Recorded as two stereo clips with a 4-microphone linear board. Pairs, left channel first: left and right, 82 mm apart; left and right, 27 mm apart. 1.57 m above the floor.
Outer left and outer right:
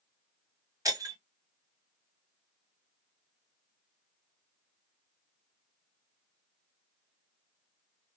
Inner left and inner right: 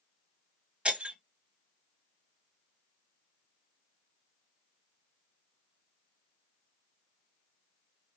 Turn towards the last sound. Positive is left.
turn(degrees=-40)  # may be behind; listen again after turning